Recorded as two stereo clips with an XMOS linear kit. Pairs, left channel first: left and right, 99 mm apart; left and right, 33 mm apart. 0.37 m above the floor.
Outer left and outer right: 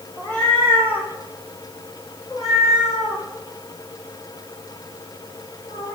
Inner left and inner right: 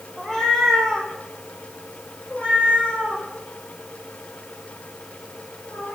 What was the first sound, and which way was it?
A cat meowing, 10° left (ahead or behind).